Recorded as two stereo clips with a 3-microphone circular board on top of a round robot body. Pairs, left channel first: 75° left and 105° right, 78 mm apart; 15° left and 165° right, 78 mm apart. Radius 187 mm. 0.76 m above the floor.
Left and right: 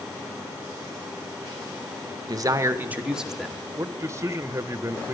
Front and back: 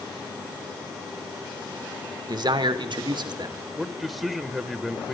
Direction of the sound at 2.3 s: 135° right.